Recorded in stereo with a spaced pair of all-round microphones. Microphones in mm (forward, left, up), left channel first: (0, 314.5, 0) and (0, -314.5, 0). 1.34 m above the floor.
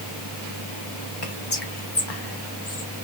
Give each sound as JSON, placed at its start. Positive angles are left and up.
{"t": 1.2, "sound": "whispering", "side_deg": 40, "distance_m": 1.0}